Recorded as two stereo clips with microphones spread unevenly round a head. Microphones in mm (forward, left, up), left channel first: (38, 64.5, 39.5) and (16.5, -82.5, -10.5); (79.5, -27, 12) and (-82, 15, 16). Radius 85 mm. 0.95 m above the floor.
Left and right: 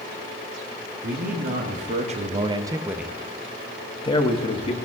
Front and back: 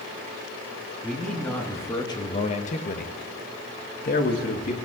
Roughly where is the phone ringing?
No phone ringing in this recording.